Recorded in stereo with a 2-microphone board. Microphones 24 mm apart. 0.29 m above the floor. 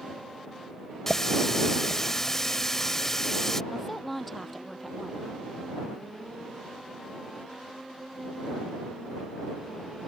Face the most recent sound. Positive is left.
turn(degrees=10)  # may be behind; listen again after turning